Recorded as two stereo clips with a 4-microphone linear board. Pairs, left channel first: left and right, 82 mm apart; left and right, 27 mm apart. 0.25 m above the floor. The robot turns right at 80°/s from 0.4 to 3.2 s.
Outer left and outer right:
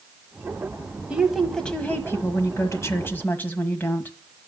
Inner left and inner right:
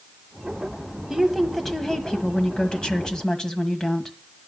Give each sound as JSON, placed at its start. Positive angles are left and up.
{"t": 1.1, "sound": "a woman speaking", "azimuth_deg": -25, "distance_m": 1.5}